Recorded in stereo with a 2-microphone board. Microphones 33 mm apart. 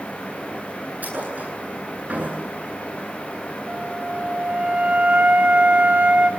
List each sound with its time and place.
1.0 s a thud: 55° right (ahead or behind), 9 m
3.7 s a flute: 50° right (ahead or behind), 3 m